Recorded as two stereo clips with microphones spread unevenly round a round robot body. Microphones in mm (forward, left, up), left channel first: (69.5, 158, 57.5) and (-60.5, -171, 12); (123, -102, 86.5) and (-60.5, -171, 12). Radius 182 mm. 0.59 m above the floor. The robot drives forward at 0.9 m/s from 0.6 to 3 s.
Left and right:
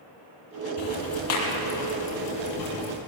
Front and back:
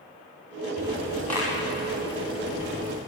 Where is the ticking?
100° left, 5.5 m; by 3.0 s 120° left, 6 m.